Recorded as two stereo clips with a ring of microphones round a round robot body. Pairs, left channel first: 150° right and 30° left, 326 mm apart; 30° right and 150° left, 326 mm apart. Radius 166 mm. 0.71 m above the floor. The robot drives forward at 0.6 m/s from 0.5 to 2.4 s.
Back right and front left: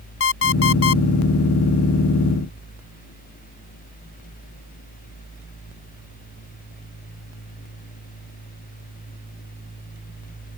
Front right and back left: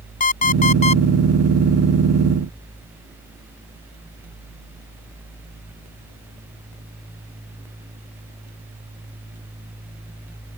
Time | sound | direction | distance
0.2 | an alarm clock | 95° right | ?